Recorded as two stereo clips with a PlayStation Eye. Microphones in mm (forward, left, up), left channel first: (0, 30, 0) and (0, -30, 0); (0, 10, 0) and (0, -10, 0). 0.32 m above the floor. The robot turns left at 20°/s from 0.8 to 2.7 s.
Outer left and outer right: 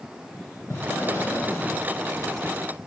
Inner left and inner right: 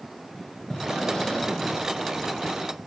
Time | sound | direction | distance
0.7 | breathing | 50° left (ahead or behind) | 0.8 m